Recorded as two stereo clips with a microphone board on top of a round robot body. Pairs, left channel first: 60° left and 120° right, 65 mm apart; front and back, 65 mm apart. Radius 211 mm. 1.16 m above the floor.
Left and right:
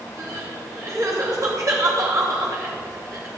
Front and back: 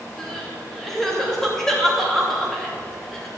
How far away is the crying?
About 3 m.